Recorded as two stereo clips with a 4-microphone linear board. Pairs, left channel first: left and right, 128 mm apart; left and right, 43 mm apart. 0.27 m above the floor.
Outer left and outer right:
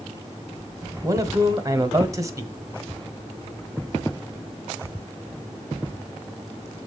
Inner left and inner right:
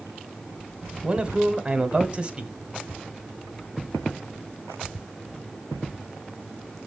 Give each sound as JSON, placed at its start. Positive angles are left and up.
{"t": 1.0, "sound": "a man speaking", "side_deg": -25, "distance_m": 1.3}